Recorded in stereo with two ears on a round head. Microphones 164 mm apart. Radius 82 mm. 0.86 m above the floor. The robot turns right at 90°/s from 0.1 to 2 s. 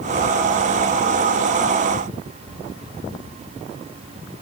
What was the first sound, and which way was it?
Only background noise.